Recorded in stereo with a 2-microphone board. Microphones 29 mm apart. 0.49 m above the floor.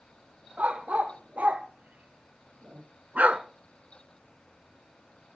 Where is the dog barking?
55° right (ahead or behind), 4 m; by 3.4 s 45° right (ahead or behind), 1.2 m.